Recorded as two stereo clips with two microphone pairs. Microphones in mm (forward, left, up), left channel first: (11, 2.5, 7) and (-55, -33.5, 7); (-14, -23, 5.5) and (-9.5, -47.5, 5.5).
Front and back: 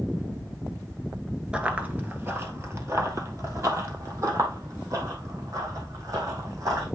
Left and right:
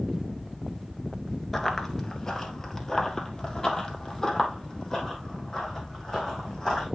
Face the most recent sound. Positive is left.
turn(degrees=170)